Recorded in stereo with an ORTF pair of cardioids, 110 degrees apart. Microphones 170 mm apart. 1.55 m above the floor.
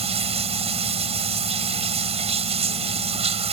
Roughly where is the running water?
Ahead right.